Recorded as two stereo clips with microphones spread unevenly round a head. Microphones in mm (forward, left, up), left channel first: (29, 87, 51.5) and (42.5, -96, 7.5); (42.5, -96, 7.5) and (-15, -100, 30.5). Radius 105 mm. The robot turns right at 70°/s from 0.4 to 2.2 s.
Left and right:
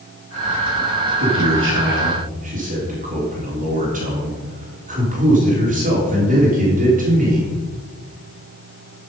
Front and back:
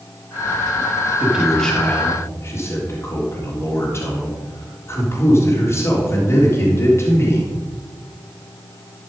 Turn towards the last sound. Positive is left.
turn(degrees=-40)